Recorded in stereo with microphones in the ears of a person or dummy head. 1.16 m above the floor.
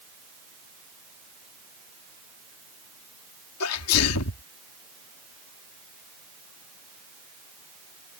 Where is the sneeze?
85° left.